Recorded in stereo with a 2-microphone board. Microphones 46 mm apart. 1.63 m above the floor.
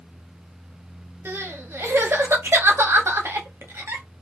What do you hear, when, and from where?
1.2 s crying: 60° right (ahead or behind), 0.7 m